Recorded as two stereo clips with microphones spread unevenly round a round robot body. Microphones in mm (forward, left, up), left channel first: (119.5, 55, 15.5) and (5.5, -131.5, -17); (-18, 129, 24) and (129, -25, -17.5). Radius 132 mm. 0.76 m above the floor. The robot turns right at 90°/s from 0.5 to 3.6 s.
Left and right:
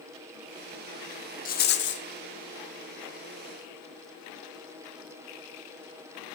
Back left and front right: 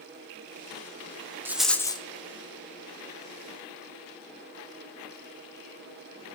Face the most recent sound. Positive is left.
turn(degrees=-155)